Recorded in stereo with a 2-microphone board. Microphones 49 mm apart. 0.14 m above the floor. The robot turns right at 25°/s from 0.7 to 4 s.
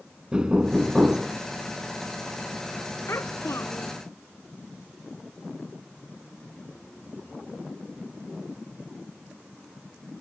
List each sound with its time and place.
0.3 s knocking: 20° right (ahead or behind); by 1.4 s 15° right (ahead or behind)
3.1 s a child speaking: 60° left (ahead or behind); by 4.0 s 80° left